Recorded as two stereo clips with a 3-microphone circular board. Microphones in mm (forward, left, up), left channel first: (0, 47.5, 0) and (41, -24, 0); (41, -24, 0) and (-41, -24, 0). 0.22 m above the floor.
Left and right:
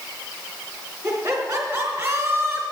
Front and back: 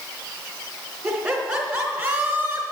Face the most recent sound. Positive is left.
turn(degrees=-125)